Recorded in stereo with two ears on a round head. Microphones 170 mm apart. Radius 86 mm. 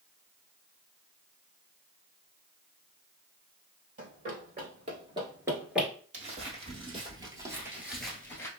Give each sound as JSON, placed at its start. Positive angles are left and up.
{"t": 4.0, "sound": "running footsteps", "side_deg": -40, "distance_m": 1.7}
{"t": 6.1, "sound": "footsteps", "side_deg": -40, "distance_m": 1.6}